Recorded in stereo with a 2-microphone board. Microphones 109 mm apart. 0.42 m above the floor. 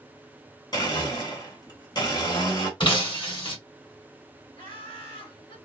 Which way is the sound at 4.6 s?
60° left (ahead or behind).